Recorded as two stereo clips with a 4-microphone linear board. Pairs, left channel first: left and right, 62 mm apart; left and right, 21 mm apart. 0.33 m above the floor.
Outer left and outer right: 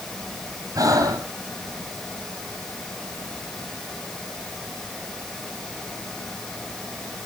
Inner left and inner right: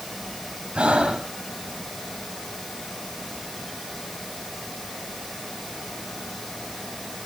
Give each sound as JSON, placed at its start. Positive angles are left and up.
{"t": 0.8, "sound": "breathing", "side_deg": -65, "distance_m": 1.6}